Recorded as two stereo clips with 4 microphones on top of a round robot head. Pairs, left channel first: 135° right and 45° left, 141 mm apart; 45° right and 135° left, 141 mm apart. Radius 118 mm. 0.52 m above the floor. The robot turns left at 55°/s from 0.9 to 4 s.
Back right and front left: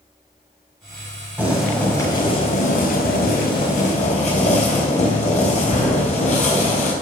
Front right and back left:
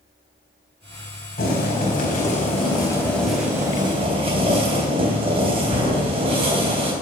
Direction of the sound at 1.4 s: 30° right.